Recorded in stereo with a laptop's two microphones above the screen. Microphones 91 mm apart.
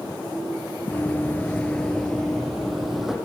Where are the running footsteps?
20° left (ahead or behind), 1.2 m; by 3.1 s centre (ahead or behind), 2.5 m.